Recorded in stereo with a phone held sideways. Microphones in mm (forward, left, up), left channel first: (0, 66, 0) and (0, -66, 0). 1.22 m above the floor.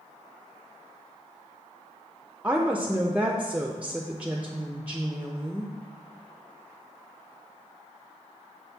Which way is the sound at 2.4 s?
10° right (ahead or behind).